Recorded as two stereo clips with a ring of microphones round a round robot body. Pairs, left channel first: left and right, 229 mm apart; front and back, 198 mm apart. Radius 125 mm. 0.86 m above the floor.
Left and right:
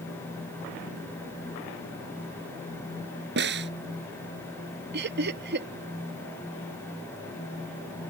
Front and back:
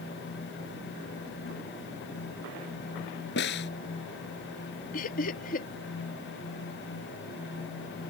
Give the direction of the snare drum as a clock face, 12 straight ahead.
2 o'clock.